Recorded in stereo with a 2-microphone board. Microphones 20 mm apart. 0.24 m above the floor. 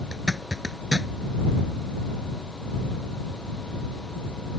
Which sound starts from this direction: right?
A zipper, at 0.1 s.